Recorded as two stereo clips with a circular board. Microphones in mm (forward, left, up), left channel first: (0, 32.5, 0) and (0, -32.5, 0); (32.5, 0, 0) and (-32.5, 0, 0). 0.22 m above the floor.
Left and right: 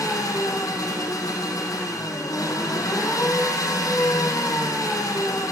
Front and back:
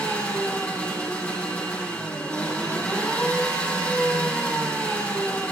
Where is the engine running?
70° left, 7 m.